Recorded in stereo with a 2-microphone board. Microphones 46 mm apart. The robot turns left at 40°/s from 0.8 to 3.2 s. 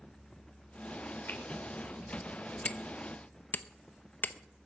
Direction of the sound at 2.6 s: 25° left (ahead or behind).